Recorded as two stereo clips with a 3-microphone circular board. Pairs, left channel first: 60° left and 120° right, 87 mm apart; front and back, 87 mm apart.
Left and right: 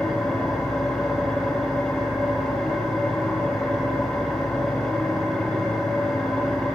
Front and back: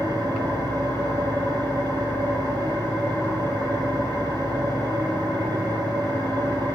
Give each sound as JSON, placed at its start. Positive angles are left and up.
{"t": 0.0, "sound": "an engine running", "azimuth_deg": 140, "distance_m": 4.5}